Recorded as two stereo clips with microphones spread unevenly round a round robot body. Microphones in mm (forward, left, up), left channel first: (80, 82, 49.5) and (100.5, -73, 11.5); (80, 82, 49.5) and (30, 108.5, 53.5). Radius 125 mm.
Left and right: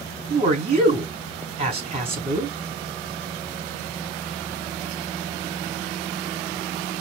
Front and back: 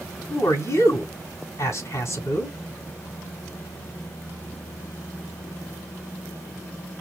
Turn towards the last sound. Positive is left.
turn(degrees=-45)